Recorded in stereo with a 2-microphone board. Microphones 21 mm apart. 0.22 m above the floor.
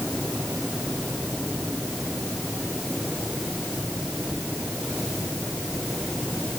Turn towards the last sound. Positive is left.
No sound to turn to.